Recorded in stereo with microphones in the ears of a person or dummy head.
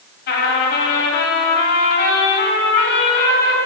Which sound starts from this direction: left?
A trumpet, at 0.3 s.